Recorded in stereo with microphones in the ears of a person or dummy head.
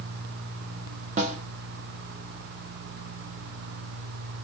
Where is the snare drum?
40° right (ahead or behind), 0.7 m.